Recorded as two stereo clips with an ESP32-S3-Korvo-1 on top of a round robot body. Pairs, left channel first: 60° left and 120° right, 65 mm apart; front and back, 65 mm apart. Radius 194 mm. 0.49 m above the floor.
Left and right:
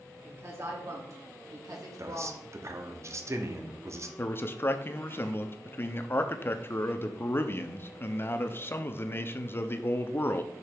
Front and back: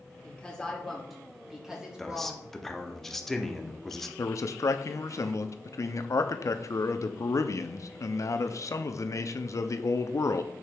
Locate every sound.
0.2 s a woman speaking: 70° right, 2.5 m; by 2.5 s 110° right, 3 m
2.0 s a man speaking: 85° right, 1.2 m
4.2 s a man speaking: 15° left, 0.9 m